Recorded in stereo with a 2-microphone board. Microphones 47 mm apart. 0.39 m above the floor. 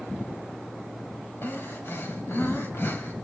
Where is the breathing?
55° left (ahead or behind), 2.5 m.